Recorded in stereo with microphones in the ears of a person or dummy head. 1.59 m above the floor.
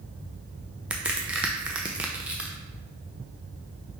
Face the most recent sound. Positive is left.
turn(degrees=-5)  # may be behind; listen again after turning